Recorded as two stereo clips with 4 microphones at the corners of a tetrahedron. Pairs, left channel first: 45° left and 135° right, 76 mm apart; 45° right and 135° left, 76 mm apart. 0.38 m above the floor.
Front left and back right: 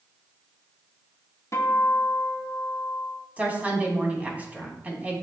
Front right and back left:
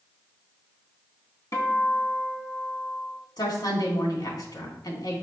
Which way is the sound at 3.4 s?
65° right.